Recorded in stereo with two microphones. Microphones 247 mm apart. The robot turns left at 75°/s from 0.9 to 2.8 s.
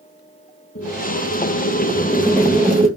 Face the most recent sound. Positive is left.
turn(degrees=-25)